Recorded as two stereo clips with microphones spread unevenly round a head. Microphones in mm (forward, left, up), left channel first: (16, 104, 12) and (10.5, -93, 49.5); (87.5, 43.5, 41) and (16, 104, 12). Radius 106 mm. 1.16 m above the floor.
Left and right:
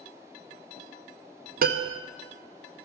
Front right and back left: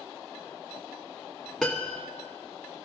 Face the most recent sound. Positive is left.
turn(degrees=-115)